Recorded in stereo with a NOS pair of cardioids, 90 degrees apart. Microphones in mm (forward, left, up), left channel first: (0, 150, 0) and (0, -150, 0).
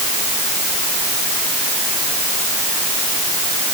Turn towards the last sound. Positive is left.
No sound to turn to.